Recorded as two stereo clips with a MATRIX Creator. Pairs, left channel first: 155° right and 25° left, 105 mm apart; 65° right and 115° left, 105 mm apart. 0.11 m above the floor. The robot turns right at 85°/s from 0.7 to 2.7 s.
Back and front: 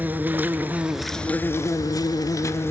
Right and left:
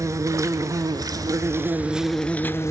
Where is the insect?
85° left, 0.8 m; by 2.7 s 105° right, 0.8 m.